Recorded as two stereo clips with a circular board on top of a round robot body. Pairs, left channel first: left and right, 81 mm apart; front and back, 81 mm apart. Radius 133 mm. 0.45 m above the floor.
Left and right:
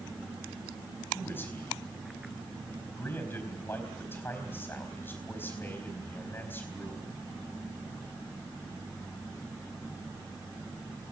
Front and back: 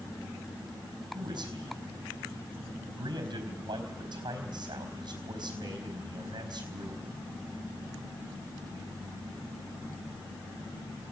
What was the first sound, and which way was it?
A man speaking, 155° left.